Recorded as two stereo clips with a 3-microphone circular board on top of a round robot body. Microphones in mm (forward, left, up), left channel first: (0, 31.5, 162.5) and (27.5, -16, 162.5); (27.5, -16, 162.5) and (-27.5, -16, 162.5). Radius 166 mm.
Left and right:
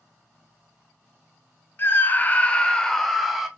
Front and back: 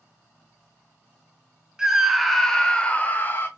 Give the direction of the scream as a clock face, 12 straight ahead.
8 o'clock.